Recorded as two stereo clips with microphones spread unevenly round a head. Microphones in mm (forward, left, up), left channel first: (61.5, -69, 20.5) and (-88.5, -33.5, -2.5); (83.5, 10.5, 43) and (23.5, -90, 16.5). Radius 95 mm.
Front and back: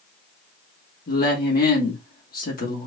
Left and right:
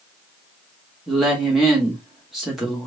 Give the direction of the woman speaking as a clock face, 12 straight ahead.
1 o'clock.